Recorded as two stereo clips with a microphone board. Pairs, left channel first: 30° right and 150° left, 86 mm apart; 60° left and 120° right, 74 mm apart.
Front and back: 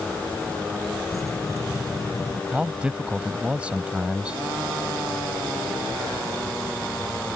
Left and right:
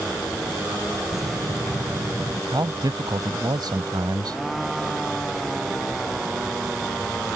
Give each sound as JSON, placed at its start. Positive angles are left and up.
{"t": 1.1, "sound": "keys jangling", "azimuth_deg": -80}
{"t": 2.5, "sound": "a man speaking", "azimuth_deg": -135}